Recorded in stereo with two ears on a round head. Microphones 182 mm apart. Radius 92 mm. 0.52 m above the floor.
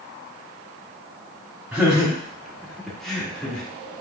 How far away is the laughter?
About 0.9 m.